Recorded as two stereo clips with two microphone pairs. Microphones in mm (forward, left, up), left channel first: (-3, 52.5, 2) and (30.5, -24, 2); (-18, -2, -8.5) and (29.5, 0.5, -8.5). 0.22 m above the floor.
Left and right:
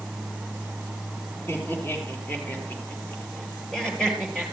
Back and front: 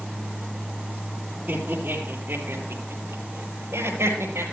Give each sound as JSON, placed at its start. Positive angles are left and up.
{"t": 1.5, "sound": "laughter", "azimuth_deg": 50, "distance_m": 5.0}